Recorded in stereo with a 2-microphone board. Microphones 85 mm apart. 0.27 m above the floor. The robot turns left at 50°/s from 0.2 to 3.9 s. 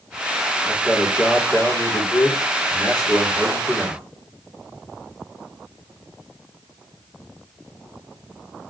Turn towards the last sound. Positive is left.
turn(degrees=5)